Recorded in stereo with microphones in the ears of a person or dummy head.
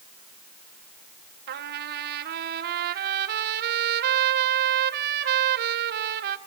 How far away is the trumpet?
About 1.1 m.